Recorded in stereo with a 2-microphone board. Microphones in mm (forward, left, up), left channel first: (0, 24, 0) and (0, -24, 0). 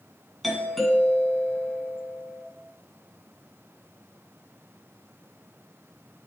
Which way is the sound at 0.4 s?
Centre (ahead or behind).